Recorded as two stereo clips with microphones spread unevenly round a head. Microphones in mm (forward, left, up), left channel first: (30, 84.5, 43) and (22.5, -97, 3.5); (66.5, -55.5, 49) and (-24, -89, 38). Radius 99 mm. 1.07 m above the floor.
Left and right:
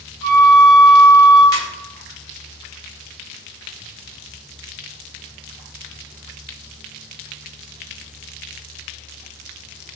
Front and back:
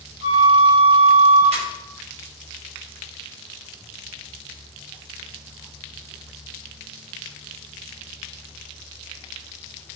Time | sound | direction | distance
0.2 | a flute | straight ahead | 1.8 m
1.5 | a ringtone | 160° left | 1.5 m